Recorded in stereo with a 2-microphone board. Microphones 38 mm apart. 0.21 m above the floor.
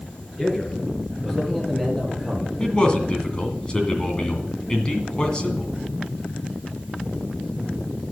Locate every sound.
0.4 s a man speaking: 25° left (ahead or behind), 3.5 m; by 2.5 s 10° left (ahead or behind), 4 m
2.6 s a man speaking: 25° left (ahead or behind), 2 m